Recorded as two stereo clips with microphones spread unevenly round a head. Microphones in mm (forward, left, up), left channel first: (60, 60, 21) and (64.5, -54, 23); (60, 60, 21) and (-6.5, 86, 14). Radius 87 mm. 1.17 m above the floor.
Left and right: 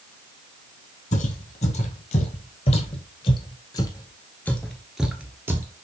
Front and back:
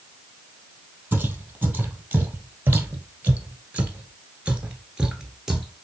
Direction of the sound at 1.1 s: 90° left.